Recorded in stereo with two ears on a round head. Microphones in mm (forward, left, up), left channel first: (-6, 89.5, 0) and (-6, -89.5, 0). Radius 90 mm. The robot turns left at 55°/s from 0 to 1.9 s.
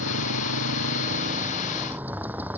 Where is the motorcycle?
65° right; by 2.6 s 170° right.